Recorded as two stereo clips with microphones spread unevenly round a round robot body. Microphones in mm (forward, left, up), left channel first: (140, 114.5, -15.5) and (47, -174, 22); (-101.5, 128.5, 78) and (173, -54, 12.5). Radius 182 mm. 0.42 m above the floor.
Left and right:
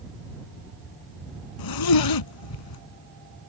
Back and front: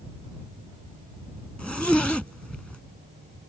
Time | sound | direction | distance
1.6 | a zipper | 60° left | ?